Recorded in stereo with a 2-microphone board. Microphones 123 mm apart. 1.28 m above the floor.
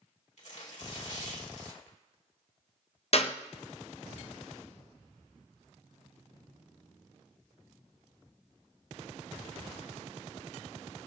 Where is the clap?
50° left (ahead or behind), 0.7 m.